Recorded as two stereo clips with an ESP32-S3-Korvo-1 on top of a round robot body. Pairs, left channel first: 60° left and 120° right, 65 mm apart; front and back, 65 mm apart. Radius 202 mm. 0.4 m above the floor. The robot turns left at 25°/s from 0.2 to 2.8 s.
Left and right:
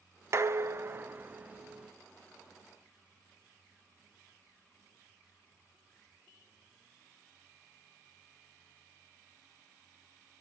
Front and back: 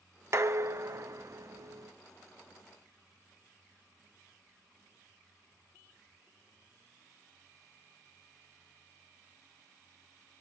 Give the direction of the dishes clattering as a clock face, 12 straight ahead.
5 o'clock.